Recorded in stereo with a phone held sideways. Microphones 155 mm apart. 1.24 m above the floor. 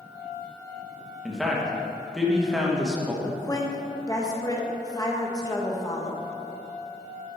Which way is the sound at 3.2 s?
25° left (ahead or behind).